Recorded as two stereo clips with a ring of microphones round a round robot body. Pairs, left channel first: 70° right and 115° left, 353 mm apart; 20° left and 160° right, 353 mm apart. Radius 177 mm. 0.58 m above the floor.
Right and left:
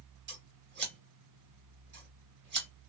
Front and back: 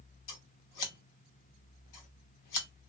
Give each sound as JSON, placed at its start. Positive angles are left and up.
{"t": 0.3, "sound": "scissors", "azimuth_deg": 55, "distance_m": 1.1}